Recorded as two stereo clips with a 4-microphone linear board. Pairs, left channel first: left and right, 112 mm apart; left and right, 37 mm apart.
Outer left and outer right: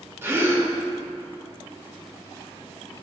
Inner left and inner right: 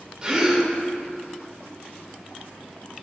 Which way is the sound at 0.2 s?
20° right (ahead or behind).